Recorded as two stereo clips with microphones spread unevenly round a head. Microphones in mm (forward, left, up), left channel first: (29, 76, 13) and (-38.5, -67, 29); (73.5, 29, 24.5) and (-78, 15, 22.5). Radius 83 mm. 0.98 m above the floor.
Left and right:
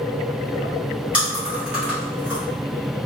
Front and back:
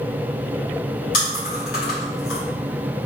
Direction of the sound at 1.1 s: 30° right.